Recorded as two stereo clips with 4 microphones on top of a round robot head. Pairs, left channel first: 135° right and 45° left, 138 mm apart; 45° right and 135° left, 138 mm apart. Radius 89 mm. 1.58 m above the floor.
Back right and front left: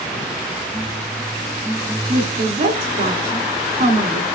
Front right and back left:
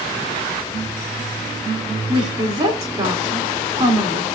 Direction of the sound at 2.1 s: 85° left.